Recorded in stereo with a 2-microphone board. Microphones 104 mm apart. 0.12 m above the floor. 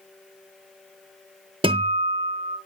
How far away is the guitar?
About 0.8 m.